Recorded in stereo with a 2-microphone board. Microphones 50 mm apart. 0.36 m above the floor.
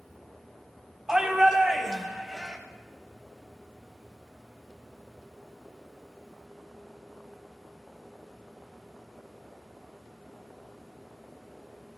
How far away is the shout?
About 3 m.